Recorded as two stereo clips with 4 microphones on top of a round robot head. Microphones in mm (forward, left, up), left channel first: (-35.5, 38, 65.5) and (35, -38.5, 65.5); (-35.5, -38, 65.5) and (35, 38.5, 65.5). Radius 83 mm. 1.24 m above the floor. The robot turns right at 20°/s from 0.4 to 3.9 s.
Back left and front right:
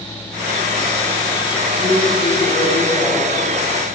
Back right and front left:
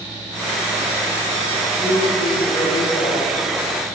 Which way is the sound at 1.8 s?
165° left.